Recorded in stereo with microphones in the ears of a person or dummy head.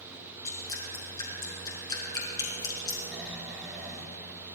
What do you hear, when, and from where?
0.5 s dripping: 25° left (ahead or behind), 4.5 m
3.1 s snoring: 5° right (ahead or behind), 3.5 m